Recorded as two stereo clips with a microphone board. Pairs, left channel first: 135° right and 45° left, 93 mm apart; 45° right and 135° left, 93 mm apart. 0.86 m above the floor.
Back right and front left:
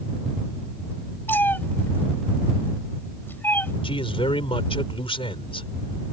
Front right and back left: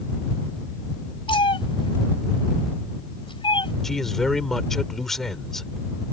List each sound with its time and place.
1.3 s a cat meowing: 65° right
3.8 s a man speaking: 130° right